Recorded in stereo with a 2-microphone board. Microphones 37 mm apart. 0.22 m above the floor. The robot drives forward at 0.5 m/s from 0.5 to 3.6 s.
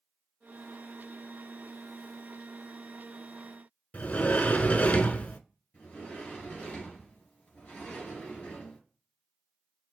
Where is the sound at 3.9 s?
40° left (ahead or behind), 0.6 m.